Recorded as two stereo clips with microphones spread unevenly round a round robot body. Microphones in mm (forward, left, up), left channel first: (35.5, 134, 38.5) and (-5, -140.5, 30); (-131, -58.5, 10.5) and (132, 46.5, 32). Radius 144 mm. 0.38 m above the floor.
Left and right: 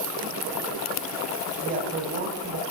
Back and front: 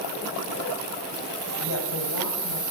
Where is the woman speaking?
155° right, 2 m.